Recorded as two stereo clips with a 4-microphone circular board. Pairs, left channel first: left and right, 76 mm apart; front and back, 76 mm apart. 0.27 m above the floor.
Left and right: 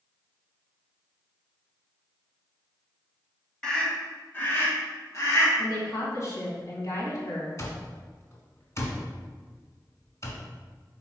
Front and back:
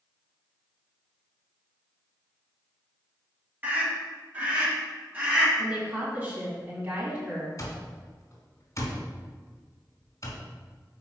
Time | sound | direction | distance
3.6 | a scream | 155° left | 1.6 m
5.6 | a woman speaking | 120° left | 2.5 m
7.6 | an alarm clock | 45° left | 1.5 m